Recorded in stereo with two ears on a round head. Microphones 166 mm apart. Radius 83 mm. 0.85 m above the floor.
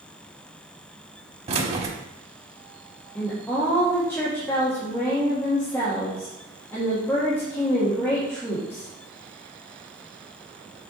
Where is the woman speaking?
15° left (ahead or behind), 1.5 m.